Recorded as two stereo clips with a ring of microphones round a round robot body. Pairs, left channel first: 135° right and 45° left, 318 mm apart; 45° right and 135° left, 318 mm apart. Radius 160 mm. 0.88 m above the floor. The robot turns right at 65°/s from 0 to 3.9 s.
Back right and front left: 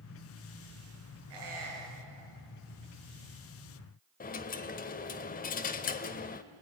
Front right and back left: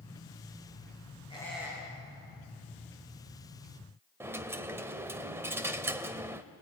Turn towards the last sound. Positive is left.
turn(degrees=-150)